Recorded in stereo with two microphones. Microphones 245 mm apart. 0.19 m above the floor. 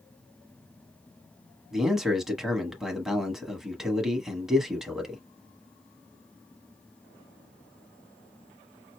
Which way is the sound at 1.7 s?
Centre (ahead or behind).